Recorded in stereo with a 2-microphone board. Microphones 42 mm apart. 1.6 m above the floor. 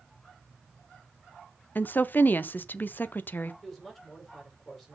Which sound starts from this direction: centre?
A woman speaking, at 3.6 s.